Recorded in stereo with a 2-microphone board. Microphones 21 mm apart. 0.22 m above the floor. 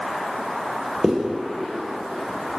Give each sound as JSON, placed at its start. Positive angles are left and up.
{"t": 1.0, "sound": "a zipper", "side_deg": -20, "distance_m": 0.9}